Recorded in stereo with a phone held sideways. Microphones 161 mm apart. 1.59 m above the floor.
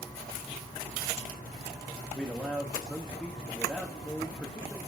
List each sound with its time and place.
2.1 s a man speaking: 5° left (ahead or behind), 1.1 m